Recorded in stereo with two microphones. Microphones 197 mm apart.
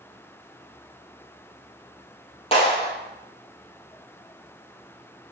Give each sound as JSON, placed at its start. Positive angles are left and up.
{"t": 2.5, "sound": "a clap", "side_deg": 30, "distance_m": 3.5}